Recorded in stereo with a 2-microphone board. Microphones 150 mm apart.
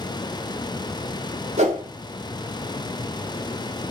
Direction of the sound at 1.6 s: 50° right (ahead or behind).